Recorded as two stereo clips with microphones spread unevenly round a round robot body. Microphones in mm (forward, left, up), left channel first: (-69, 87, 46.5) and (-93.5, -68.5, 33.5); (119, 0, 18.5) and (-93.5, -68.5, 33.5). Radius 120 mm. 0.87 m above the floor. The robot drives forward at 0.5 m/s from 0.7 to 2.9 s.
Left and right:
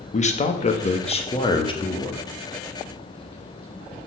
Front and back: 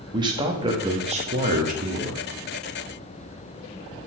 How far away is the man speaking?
About 1.3 m.